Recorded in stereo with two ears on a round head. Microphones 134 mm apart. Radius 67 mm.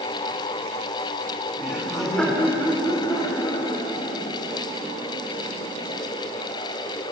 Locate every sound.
1.6 s laughter: 10° right (ahead or behind), 2 m; by 6.0 s 55° left (ahead or behind), 4 m